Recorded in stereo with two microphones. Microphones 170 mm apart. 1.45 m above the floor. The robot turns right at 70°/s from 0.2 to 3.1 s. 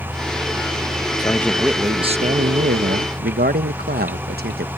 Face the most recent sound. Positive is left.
turn(degrees=-70)